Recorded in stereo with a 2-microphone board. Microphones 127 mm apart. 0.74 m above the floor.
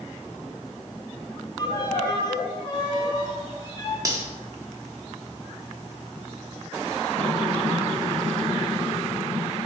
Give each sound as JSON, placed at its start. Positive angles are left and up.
{"t": 1.6, "sound": "a violin", "side_deg": 35, "distance_m": 0.8}
{"t": 4.0, "sound": "cutlery clinking", "side_deg": -25, "distance_m": 0.7}